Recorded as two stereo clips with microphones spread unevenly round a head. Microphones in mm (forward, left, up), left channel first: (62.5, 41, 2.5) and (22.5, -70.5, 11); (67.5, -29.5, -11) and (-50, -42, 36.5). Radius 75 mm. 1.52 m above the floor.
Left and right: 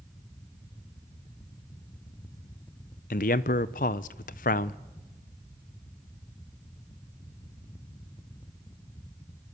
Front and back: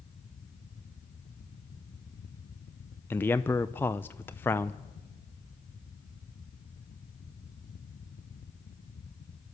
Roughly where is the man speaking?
Left.